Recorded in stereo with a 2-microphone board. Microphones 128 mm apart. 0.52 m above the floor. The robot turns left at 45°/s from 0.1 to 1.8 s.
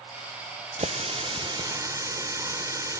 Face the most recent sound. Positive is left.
turn(degrees=-150)